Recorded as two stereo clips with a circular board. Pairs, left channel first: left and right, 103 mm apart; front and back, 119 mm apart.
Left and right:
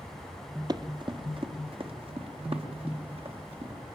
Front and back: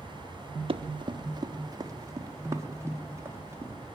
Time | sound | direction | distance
0.7 | running footsteps | 140° right | 1.7 m